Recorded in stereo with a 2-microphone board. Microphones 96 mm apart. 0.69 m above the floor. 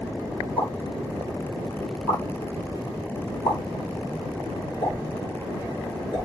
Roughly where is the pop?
Left.